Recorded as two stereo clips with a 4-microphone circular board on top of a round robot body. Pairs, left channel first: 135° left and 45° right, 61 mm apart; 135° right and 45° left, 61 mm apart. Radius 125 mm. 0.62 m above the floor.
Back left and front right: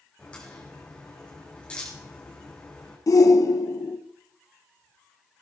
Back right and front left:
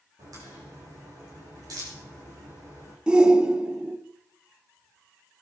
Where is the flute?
I don't hear a flute.